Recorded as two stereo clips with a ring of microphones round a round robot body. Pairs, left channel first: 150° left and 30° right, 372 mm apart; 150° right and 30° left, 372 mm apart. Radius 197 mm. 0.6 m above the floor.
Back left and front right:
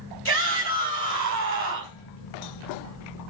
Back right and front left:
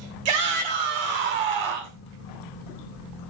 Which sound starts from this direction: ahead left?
A shout, at 0.2 s.